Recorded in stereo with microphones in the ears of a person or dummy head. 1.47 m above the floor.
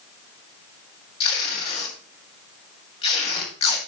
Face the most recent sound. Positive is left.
turn(degrees=30)  # may be behind; listen again after turning